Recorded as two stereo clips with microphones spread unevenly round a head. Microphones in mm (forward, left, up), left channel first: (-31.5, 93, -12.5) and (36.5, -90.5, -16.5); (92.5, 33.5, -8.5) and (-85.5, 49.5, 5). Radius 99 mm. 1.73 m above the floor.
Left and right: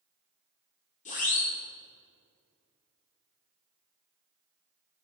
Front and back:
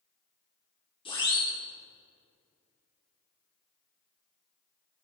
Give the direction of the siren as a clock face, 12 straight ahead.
10 o'clock.